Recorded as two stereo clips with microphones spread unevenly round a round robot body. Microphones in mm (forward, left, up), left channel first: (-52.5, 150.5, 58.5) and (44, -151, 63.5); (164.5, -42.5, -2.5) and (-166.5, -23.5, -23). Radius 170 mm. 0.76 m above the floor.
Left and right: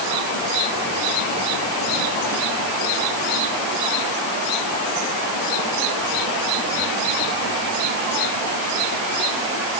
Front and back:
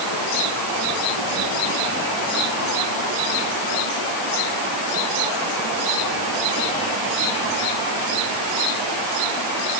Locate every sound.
Only background noise.